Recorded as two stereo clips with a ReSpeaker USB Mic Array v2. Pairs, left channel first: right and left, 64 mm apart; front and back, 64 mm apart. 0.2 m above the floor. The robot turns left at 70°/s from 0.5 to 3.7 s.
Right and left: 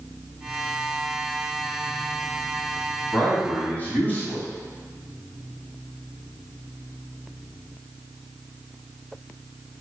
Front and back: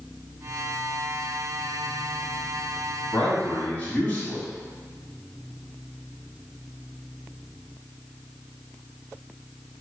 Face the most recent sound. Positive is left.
turn(degrees=-45)